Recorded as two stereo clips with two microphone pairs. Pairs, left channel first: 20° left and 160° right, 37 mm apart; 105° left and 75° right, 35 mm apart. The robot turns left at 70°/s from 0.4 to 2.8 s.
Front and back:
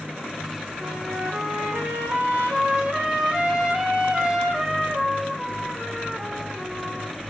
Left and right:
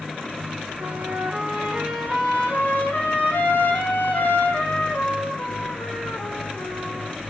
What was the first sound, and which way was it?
A trumpet, 90° right.